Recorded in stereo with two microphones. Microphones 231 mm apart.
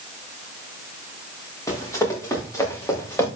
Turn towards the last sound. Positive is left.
turn(degrees=10)  # may be behind; listen again after turning